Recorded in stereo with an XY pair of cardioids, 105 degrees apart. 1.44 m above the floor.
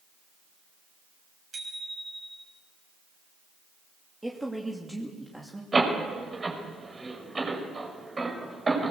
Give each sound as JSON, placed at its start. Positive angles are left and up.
{"t": 1.5, "sound": "a bicycle bell", "azimuth_deg": -40, "distance_m": 7.0}
{"t": 4.2, "sound": "a woman speaking", "azimuth_deg": -10, "distance_m": 3.0}
{"t": 5.7, "sound": "a door slam", "azimuth_deg": -25, "distance_m": 5.5}